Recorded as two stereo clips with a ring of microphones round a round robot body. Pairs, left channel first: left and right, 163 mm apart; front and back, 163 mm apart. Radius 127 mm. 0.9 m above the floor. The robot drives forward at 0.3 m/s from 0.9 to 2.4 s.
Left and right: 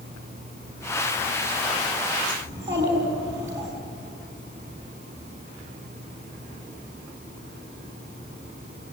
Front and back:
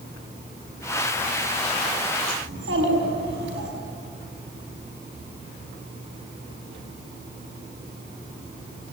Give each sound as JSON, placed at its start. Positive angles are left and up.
{"t": 2.5, "sound": "a child speaking", "azimuth_deg": -170, "distance_m": 5.5}